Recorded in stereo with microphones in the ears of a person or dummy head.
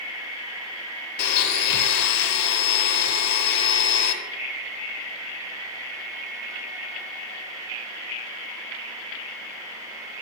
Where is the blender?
50° left (ahead or behind), 1.0 m.